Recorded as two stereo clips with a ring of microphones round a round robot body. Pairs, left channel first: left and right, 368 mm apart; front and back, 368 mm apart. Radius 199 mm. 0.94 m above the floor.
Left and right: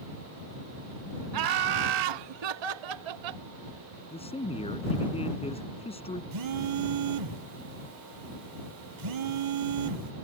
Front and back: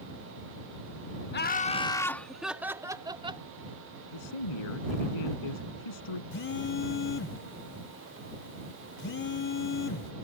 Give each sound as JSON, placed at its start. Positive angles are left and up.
{"t": 1.3, "sound": "laughter", "azimuth_deg": -60}
{"t": 4.1, "sound": "a man speaking", "azimuth_deg": 15}
{"t": 6.3, "sound": "a phone buzzing", "azimuth_deg": -60}